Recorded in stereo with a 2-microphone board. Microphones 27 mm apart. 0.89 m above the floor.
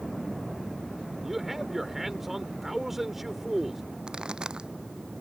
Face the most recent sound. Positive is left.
turn(degrees=-30)  # may be behind; listen again after turning